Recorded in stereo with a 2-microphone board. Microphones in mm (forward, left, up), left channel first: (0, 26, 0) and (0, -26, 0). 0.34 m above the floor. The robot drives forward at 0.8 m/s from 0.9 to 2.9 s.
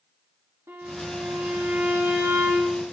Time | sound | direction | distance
0.7 | a violin | 85° right | 4.5 m